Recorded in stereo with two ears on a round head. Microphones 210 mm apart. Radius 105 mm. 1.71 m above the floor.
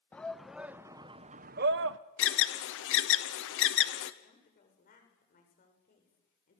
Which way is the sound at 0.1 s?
5° left (ahead or behind).